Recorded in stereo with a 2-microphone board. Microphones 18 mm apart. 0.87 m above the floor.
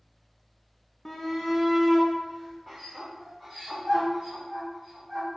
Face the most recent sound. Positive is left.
turn(degrees=0)  # may be behind; listen again after turning